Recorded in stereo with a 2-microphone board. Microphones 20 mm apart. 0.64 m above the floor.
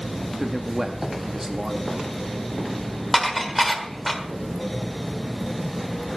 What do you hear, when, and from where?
0.4 s a man speaking: 20° right (ahead or behind), 0.9 m
3.1 s dishes clattering: centre (ahead or behind), 1.5 m